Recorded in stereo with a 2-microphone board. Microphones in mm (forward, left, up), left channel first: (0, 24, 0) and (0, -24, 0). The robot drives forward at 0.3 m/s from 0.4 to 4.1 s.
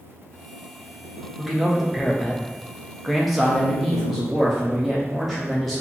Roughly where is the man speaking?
Centre.